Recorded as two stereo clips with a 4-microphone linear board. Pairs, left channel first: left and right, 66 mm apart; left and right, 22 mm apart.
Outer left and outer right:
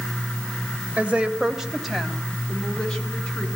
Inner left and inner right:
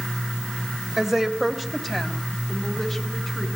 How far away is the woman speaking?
About 1.9 m.